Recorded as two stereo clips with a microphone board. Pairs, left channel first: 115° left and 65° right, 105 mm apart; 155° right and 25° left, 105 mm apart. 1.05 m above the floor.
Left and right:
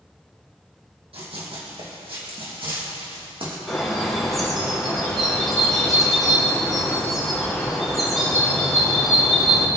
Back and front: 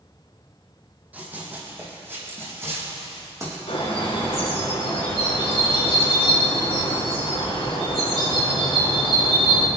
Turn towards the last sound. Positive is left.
turn(degrees=-160)